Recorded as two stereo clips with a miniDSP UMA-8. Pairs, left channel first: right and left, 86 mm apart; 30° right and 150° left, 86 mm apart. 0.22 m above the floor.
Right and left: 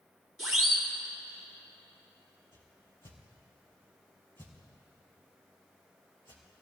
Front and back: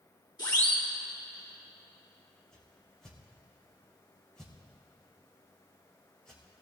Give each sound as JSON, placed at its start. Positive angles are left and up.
{"t": 0.4, "sound": "a siren", "azimuth_deg": 5, "distance_m": 3.5}
{"t": 2.5, "sound": "a whoosh", "azimuth_deg": -110, "distance_m": 3.5}